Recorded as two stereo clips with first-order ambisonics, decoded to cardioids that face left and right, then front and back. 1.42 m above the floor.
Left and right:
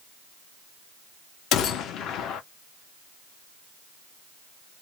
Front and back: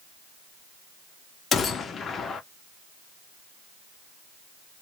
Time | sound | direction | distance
1.5 | a gunshot | 60° left | 0.5 m